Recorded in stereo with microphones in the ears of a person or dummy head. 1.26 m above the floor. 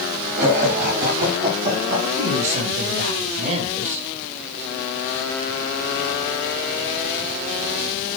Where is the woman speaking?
45° right (ahead or behind), 6.5 m.